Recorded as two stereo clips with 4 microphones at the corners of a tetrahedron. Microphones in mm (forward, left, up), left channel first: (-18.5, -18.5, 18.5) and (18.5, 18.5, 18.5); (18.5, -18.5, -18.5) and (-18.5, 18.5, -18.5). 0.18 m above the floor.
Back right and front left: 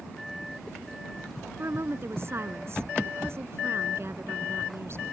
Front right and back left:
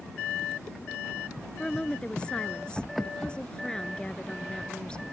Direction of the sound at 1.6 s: 25° left.